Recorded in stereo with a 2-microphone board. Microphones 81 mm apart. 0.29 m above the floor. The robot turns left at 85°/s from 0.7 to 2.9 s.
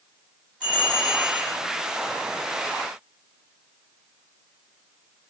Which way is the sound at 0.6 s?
60° right.